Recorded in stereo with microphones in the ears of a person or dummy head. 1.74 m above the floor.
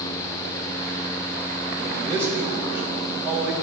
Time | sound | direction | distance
1.8 | a man speaking | 15° right (ahead or behind) | 1.5 m